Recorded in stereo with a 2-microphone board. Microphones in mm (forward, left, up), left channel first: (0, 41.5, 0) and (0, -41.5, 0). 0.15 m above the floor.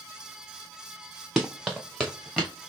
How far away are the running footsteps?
About 0.9 m.